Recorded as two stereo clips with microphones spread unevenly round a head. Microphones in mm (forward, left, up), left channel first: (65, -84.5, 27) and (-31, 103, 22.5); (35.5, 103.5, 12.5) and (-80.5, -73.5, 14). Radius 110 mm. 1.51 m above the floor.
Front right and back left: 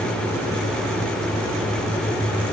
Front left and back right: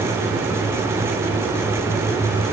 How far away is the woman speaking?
No woman speaking in this recording.